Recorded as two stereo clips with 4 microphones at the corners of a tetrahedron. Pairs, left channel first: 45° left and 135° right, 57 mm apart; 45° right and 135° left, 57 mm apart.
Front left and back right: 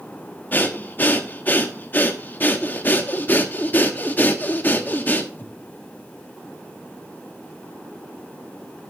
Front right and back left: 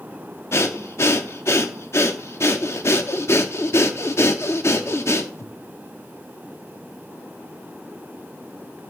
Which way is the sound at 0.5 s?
10° right.